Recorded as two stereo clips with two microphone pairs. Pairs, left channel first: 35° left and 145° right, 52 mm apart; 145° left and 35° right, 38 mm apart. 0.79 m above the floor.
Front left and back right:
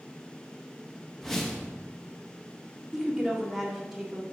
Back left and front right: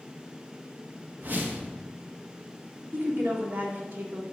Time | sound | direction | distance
1.2 | a whoosh | 45° right | 0.9 m
2.9 | a woman speaking | 60° right | 1.6 m